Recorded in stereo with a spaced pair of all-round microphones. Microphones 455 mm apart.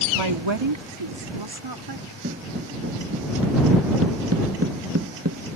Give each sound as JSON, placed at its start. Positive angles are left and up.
{"t": 0.1, "sound": "a woman speaking", "side_deg": -80}
{"t": 2.2, "sound": "footsteps", "side_deg": -25}